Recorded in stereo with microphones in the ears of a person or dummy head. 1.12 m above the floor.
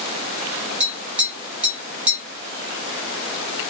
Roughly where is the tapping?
Centre.